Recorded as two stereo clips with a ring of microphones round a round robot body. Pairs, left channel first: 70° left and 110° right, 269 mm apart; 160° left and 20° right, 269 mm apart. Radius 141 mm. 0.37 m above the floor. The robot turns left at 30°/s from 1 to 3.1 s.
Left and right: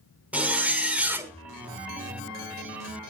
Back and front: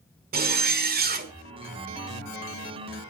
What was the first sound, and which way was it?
A zipper, 30° right.